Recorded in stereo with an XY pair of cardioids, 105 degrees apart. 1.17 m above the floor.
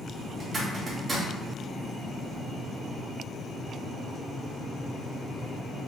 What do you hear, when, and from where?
0.4 s a zipper: 35° right, 1.5 m